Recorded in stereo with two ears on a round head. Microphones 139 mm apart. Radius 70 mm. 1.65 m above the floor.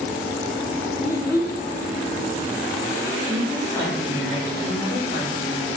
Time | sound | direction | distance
1.0 | a child speaking | 15° left (ahead or behind) | 1.9 m
3.2 | a woman speaking | 50° left (ahead or behind) | 2.5 m